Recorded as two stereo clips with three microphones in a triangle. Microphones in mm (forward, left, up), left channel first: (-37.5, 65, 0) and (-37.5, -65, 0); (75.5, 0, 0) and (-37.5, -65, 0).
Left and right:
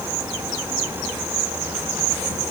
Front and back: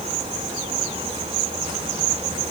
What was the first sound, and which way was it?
Only background noise.